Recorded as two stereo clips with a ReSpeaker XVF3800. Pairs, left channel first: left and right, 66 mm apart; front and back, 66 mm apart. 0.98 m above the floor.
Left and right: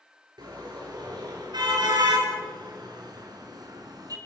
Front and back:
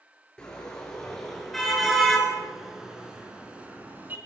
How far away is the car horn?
About 7.5 m.